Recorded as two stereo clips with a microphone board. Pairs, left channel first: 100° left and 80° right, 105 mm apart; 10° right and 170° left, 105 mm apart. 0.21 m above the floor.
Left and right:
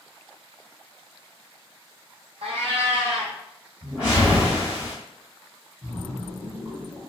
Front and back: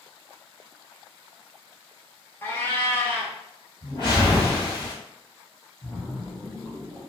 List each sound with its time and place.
2.4 s a cat meowing: 80° right, 0.7 m
3.8 s a whoosh: straight ahead, 2.0 m
5.8 s a splash: 100° right, 0.9 m